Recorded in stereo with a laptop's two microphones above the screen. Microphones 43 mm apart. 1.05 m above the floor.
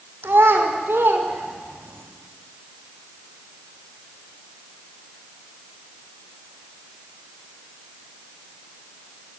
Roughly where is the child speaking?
Right.